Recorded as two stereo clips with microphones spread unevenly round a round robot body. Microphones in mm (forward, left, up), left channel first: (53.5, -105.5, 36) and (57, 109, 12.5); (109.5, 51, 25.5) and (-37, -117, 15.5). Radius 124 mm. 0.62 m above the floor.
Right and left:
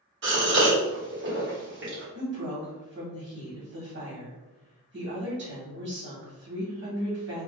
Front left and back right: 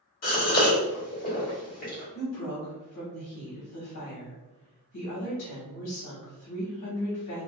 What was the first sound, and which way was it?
A gasp, 100° left.